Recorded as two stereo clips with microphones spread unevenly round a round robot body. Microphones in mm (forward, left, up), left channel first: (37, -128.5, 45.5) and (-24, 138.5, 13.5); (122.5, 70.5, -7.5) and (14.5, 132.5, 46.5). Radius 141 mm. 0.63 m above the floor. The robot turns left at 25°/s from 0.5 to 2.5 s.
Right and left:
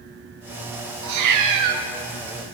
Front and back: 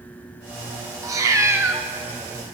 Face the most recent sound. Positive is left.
turn(degrees=85)